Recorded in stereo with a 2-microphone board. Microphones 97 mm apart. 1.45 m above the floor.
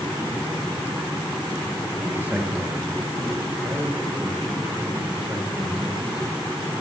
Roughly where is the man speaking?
Centre.